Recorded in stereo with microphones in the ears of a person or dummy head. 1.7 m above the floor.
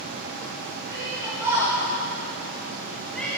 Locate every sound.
0.9 s a shout: 10° right (ahead or behind), 4 m; by 3.3 s 10° left (ahead or behind), 2.5 m